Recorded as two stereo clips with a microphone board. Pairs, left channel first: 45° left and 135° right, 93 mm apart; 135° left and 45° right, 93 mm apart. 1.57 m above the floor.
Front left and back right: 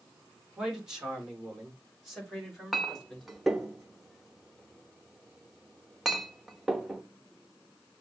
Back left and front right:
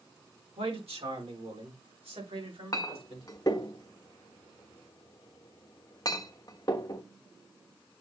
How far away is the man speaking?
About 3 m.